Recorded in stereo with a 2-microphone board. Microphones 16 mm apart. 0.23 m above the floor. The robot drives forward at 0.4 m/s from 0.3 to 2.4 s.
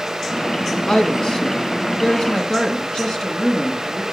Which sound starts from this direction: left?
A woman speaking, at 0.9 s.